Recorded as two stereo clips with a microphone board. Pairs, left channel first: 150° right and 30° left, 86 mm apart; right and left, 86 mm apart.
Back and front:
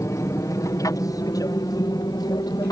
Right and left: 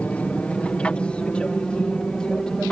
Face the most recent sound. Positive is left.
turn(degrees=-170)